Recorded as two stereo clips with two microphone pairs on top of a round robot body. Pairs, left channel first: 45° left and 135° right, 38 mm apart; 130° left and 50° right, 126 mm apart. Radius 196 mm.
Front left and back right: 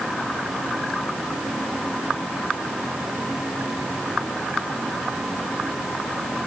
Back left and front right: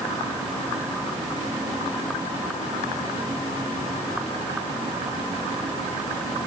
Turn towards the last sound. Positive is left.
No sound to turn to.